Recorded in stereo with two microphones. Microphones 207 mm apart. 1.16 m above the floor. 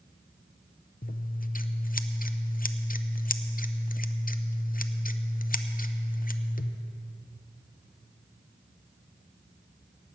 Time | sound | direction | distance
1.0 | scissors | 45° left (ahead or behind) | 0.6 m